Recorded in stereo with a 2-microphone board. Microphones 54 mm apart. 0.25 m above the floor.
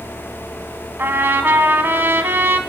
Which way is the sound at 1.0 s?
40° right (ahead or behind).